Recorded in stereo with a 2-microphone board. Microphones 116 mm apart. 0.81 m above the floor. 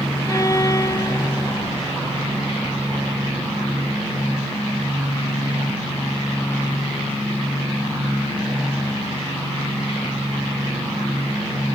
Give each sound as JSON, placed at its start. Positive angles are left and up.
{"t": 0.3, "sound": "a violin", "side_deg": 30}